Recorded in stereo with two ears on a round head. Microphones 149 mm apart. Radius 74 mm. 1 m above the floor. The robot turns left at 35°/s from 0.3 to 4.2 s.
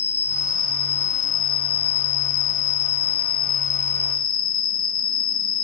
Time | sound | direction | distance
0.0 | an insect | 165° left | ?